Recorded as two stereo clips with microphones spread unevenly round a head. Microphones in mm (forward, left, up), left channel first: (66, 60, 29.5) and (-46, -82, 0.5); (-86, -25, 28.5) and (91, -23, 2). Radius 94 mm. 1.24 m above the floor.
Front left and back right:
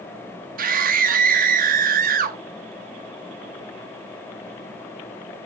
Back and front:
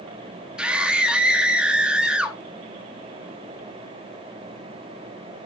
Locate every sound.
0.6 s a scream: 85° right, 1.8 m